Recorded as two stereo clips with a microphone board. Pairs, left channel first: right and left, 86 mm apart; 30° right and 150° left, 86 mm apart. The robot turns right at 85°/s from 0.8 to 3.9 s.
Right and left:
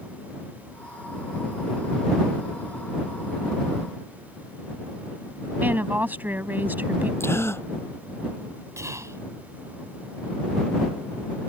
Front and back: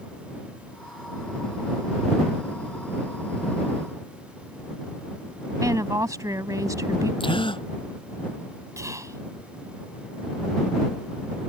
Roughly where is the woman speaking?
Behind left.